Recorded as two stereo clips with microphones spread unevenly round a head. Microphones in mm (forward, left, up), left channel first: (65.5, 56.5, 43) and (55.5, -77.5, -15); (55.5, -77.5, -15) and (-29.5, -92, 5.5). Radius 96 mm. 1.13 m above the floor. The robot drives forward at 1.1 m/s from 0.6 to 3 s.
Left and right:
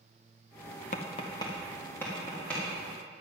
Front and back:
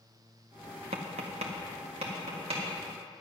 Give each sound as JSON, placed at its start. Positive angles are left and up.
{"t": 0.9, "sound": "tapping", "azimuth_deg": 145, "distance_m": 0.6}